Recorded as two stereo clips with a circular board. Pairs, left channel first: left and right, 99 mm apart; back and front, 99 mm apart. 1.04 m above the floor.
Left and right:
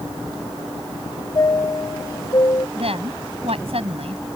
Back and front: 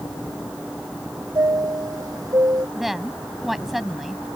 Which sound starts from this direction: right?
A woman speaking, at 2.8 s.